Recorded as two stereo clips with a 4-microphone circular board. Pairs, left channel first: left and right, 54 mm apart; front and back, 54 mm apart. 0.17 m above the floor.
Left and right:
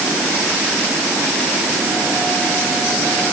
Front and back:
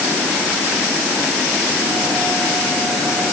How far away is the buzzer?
No buzzer in this recording.